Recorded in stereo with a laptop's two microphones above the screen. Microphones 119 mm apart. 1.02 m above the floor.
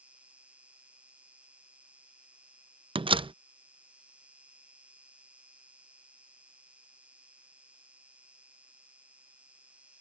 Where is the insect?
10° right (ahead or behind).